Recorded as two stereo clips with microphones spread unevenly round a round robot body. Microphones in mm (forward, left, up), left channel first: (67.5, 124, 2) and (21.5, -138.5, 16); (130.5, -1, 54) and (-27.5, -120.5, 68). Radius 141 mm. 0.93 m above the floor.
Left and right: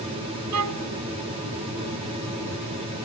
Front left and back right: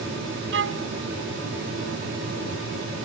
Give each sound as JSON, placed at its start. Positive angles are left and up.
{"t": 0.5, "sound": "a violin", "azimuth_deg": -135}